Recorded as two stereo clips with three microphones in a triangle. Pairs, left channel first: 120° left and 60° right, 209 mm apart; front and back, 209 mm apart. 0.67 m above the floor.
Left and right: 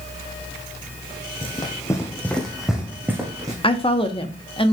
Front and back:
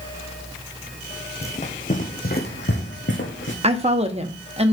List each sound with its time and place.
1.4 s running footsteps: 55° left, 1.7 m; by 3.5 s 15° left, 2 m
3.6 s a woman speaking: 155° left, 0.9 m